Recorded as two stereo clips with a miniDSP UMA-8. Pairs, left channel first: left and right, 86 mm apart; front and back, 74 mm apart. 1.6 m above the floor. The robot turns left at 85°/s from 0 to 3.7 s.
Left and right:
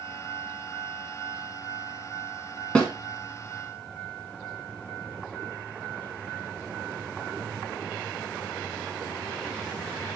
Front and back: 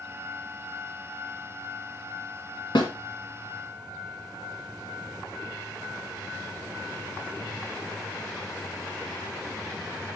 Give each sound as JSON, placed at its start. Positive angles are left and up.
{"t": 2.8, "sound": "a snare drum", "azimuth_deg": 15, "distance_m": 2.0}